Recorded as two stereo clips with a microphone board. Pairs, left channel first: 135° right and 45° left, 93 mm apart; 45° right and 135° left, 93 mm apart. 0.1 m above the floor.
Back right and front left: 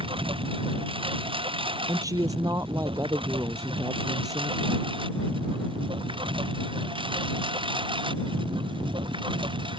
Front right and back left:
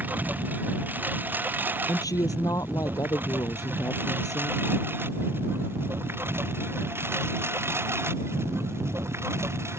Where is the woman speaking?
Straight ahead.